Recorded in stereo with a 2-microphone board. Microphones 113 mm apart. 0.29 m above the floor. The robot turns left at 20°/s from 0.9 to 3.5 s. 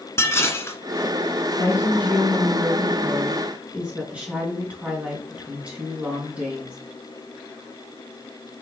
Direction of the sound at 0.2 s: 25° left (ahead or behind).